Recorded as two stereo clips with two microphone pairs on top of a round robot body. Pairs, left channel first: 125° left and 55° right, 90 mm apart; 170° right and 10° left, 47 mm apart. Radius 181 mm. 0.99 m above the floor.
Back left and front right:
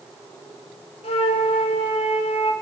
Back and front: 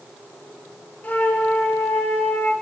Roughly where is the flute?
Behind left.